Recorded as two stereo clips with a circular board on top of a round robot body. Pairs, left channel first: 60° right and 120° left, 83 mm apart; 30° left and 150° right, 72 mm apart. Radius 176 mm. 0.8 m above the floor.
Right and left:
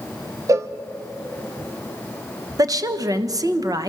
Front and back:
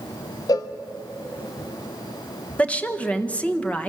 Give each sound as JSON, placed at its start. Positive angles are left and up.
{"t": 0.5, "sound": "a cowbell", "azimuth_deg": 65, "distance_m": 0.5}
{"t": 2.6, "sound": "a woman speaking", "azimuth_deg": 95, "distance_m": 1.4}